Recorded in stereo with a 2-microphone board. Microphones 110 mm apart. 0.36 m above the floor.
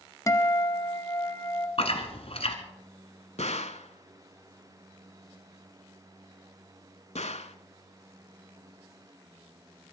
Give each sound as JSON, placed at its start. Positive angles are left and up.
{"t": 0.3, "sound": "a guitar", "side_deg": 30, "distance_m": 1.0}
{"t": 1.8, "sound": "chewing", "side_deg": 60, "distance_m": 1.6}
{"t": 3.4, "sound": "a gunshot", "side_deg": 80, "distance_m": 0.7}